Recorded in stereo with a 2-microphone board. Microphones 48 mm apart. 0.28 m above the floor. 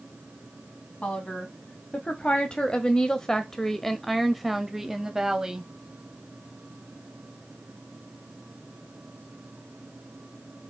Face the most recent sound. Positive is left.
turn(degrees=-15)  # may be behind; listen again after turning